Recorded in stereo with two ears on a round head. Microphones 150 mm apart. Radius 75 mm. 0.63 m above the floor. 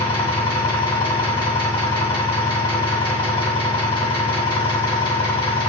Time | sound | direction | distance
0.0 | an engine running | 30° left (ahead or behind) | 3 m